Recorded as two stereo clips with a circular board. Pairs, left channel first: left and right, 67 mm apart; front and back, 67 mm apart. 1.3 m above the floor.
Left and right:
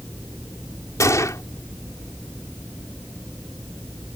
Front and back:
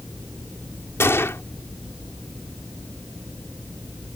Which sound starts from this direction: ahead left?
A gunshot, at 1.0 s.